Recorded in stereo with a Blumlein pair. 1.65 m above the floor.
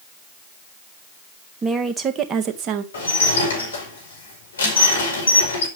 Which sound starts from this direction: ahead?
A woman speaking, at 1.6 s.